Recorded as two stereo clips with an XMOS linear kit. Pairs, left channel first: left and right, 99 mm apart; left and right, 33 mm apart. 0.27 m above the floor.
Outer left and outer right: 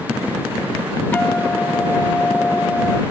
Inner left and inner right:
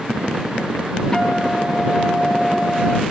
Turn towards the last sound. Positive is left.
turn(degrees=20)  # may be behind; listen again after turning